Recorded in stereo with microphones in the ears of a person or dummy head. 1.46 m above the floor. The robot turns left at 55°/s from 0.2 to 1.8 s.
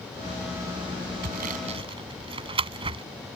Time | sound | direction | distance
1.2 | sawing | 55° right (ahead or behind) | ?